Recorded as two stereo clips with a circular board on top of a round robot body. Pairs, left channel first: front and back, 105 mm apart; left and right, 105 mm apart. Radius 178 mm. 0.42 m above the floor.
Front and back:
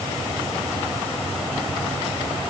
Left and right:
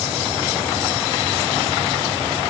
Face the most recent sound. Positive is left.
No sound to turn to.